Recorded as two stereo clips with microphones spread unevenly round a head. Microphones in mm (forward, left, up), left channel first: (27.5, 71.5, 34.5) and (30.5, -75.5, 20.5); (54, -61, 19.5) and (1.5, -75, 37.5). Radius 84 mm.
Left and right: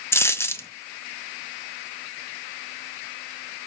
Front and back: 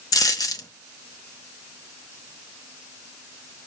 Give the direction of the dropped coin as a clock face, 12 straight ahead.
11 o'clock.